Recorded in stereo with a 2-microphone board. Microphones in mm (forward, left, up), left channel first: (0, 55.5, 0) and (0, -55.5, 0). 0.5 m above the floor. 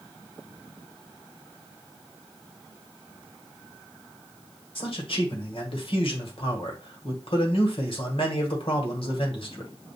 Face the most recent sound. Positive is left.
turn(degrees=55)  # may be behind; listen again after turning